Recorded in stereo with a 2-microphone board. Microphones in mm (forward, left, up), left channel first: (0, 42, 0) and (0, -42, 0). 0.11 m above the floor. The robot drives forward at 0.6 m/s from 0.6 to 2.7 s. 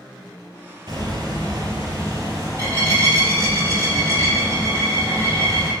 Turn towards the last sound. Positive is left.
turn(degrees=-35)  # may be behind; listen again after turning